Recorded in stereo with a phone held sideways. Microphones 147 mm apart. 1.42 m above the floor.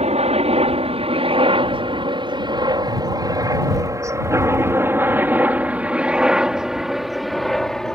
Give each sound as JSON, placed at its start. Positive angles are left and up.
{"t": 0.0, "sound": "a helicopter", "side_deg": -45}